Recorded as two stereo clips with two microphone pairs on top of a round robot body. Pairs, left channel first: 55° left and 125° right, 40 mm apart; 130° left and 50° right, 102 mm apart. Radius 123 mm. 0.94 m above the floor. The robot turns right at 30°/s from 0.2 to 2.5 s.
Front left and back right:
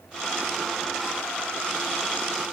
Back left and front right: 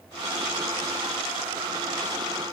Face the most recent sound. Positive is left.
No sound to turn to.